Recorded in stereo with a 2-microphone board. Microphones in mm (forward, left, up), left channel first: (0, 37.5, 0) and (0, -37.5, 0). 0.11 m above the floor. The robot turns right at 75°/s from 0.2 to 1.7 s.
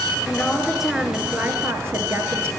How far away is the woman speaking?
About 1.3 m.